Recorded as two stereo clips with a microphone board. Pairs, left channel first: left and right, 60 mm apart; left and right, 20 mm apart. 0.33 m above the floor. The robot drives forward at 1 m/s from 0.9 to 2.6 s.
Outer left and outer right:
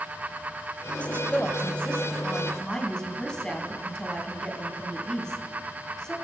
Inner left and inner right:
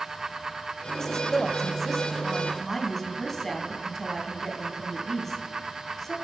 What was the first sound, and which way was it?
A woman speaking, 20° left (ahead or behind).